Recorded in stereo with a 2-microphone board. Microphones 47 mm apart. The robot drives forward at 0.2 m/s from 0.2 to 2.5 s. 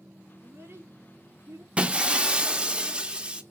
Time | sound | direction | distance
0.4 | a child speaking | 45° right (ahead or behind) | 3 m
1.8 | breaking glass | 20° right (ahead or behind) | 0.6 m